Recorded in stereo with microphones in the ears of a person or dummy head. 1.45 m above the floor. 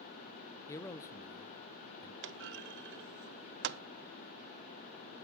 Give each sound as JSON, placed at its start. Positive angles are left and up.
{"t": 0.7, "sound": "a man speaking", "side_deg": 15, "distance_m": 0.5}
{"t": 2.2, "sound": "a clunk", "side_deg": -55, "distance_m": 0.5}